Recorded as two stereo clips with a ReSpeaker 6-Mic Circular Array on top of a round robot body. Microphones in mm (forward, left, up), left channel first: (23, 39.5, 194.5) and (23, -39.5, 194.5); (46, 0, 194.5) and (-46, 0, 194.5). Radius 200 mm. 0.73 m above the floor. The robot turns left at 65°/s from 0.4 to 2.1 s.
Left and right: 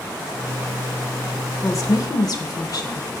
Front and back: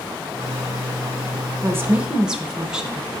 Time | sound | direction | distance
1.6 | a woman speaking | 130° left | 1.3 m